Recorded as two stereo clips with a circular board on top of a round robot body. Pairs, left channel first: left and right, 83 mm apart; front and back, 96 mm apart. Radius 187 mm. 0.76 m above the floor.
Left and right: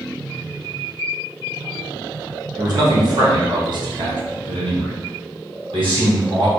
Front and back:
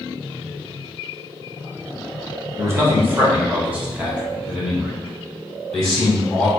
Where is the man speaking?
125° right, 1.8 m; by 6.5 s 80° right, 3 m.